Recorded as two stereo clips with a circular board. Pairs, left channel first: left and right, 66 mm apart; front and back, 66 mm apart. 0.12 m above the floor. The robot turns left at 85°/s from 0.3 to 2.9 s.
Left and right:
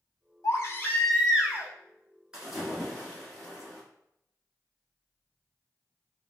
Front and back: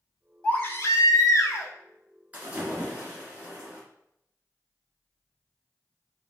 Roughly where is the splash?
Behind right.